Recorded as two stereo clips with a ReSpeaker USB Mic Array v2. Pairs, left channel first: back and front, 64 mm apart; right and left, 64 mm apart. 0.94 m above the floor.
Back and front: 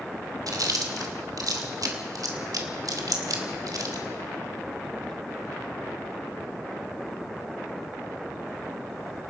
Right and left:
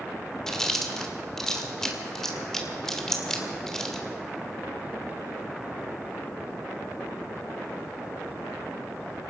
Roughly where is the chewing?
Ahead.